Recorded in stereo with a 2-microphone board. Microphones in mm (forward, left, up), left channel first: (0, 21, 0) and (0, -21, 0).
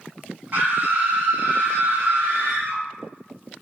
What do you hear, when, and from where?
0.5 s a scream: 45° right (ahead or behind), 1.8 m; by 2.8 s 70° right (ahead or behind), 2.5 m